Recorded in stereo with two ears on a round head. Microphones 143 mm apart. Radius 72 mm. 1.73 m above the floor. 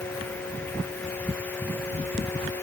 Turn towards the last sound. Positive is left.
No sound to turn to.